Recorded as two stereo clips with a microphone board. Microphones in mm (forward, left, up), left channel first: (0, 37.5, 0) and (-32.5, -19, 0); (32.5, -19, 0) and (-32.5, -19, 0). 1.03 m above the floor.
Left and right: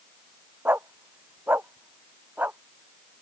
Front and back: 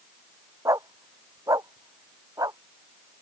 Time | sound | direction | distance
0.7 | a dog barking | 175° right | ?